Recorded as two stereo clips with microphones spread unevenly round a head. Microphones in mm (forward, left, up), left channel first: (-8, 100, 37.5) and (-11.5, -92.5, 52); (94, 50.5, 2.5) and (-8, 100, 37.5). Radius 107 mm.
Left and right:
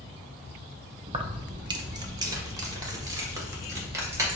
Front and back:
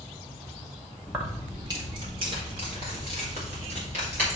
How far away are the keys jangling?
About 0.5 m.